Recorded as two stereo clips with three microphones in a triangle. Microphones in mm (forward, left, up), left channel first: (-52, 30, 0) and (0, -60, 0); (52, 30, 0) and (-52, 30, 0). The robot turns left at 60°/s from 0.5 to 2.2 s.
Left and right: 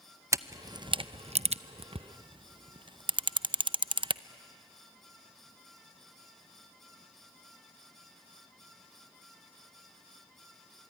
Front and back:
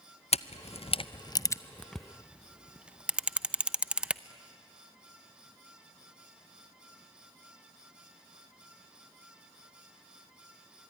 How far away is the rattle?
I don't hear a rattle.